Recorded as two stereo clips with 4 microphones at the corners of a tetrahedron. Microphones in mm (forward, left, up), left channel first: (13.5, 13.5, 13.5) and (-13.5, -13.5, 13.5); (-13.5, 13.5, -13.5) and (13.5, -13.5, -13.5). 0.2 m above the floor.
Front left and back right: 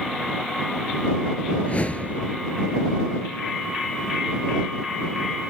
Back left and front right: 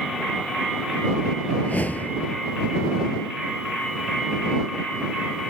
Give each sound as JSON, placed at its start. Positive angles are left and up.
{"t": 1.6, "sound": "a whoosh", "azimuth_deg": 95}